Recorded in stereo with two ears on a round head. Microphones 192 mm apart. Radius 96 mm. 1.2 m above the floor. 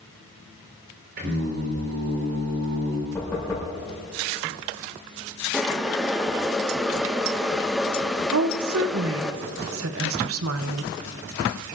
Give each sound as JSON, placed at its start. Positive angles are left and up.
{"t": 1.2, "sound": "singing", "side_deg": -60, "distance_m": 4.0}
{"t": 3.1, "sound": "knocking", "side_deg": 10, "distance_m": 5.5}
{"t": 5.5, "sound": "boiling", "side_deg": 0, "distance_m": 0.7}
{"t": 8.3, "sound": "a woman speaking", "side_deg": -70, "distance_m": 0.8}